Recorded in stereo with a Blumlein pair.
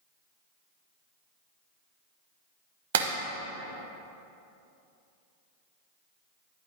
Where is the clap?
60° right, 0.8 m.